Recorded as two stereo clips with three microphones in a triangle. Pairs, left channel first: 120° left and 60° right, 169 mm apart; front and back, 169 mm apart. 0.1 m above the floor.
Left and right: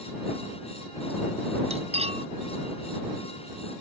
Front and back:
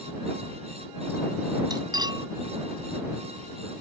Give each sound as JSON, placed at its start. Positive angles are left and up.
{"t": 1.7, "sound": "cutlery clinking", "azimuth_deg": -115}